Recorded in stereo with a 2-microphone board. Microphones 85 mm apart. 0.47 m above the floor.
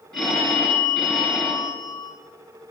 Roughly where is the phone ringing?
Centre.